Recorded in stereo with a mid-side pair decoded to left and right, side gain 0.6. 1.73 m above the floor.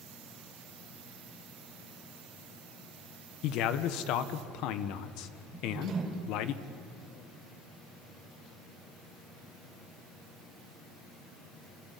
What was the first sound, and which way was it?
A man speaking, 70° left.